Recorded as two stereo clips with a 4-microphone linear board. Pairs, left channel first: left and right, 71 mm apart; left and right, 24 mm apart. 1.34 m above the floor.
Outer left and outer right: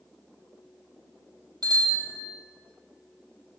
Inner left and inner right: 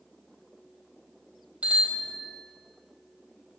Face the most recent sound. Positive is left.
turn(degrees=-85)